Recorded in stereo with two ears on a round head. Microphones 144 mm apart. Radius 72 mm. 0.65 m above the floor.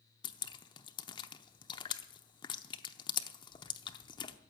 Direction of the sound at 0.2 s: 30° left (ahead or behind).